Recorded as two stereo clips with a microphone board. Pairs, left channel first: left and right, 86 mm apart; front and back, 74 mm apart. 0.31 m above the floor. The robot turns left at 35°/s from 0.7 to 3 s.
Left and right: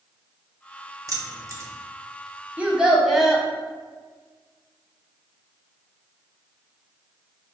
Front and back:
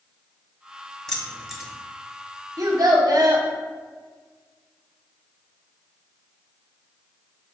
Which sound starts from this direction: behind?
A child speaking, at 2.6 s.